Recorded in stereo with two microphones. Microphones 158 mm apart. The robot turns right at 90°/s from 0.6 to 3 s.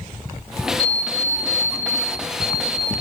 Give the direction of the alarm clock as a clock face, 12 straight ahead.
4 o'clock.